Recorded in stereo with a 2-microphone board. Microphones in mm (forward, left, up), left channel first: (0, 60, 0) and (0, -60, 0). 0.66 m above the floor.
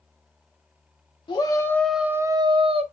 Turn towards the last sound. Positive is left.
turn(degrees=-50)  # may be behind; listen again after turning